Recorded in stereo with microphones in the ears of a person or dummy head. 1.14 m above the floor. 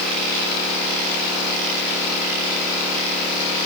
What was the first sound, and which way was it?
Only background noise.